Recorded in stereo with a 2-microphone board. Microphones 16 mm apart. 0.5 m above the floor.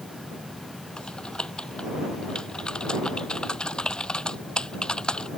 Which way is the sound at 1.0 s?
80° left.